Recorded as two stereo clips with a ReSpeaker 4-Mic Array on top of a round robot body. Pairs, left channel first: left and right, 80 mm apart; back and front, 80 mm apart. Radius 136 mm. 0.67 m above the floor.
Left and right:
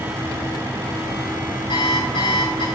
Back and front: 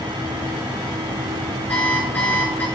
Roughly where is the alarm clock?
Left.